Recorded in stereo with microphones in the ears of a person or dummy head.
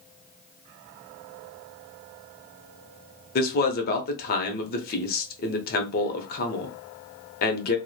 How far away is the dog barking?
No dog barking in this recording.